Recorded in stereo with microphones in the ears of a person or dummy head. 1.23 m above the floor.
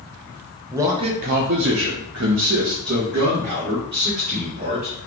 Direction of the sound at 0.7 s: 15° right (ahead or behind).